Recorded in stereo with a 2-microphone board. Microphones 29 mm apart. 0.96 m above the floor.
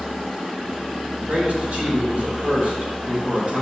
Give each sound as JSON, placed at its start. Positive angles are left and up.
{"t": 1.2, "sound": "a man speaking", "side_deg": -50, "distance_m": 4.5}